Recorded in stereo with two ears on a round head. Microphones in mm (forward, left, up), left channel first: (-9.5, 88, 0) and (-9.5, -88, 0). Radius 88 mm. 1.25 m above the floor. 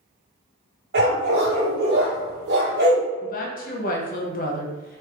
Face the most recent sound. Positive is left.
turn(degrees=45)  # may be behind; listen again after turning